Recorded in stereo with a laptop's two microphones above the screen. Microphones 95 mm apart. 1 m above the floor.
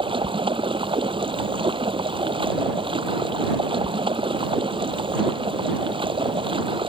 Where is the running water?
65° right (ahead or behind).